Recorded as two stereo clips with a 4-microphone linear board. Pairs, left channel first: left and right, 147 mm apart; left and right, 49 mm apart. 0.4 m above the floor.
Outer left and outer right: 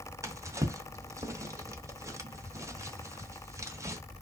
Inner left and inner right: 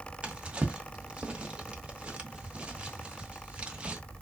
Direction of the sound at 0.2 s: 20° right (ahead or behind).